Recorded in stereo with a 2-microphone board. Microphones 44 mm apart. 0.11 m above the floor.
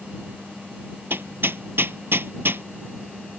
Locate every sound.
1.1 s hammering: 65° right (ahead or behind)